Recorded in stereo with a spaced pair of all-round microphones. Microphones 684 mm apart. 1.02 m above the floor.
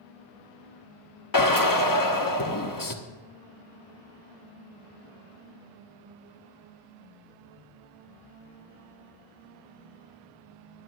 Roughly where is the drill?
Left.